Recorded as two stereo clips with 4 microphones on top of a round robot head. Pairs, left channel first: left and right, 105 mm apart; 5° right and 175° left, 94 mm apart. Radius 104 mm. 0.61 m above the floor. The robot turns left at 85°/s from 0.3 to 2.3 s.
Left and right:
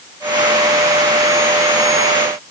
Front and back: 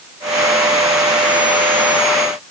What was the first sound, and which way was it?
Only background noise.